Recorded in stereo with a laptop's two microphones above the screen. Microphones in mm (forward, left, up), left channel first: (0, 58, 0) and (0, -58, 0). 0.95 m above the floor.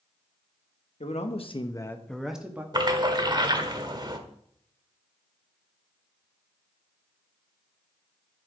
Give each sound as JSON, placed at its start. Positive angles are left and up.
{"t": 1.0, "sound": "a man speaking", "side_deg": 70, "distance_m": 1.4}
{"t": 2.7, "sound": "a splash", "side_deg": -40, "distance_m": 1.3}